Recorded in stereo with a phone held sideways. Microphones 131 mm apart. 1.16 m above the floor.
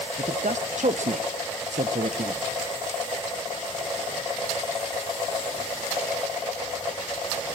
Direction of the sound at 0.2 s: 65° right (ahead or behind).